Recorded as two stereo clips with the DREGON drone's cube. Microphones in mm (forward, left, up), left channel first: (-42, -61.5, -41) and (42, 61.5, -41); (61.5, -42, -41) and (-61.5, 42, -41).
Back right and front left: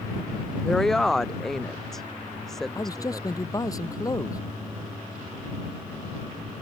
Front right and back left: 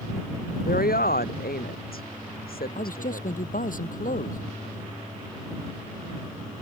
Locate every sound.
0.7 s a woman speaking: 35° right
2.8 s a man speaking: 60° right